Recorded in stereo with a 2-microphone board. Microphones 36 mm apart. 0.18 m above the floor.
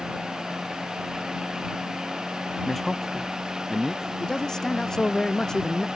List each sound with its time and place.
2.6 s a man speaking: 5° left (ahead or behind); by 4.1 s centre (ahead or behind)
4.2 s a man speaking: 20° left (ahead or behind)